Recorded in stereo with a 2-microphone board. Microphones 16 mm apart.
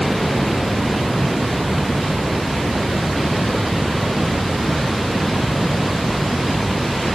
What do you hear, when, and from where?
Only background noise.